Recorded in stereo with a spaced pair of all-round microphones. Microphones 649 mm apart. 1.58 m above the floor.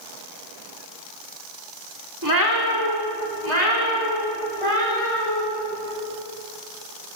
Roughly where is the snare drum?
No snare drum in this recording.